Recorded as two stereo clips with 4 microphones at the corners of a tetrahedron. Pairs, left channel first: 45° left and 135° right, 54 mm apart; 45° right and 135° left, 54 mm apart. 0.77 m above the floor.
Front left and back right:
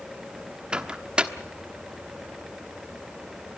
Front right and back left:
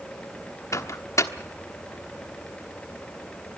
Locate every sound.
0.7 s a microwave: 65° right, 1.2 m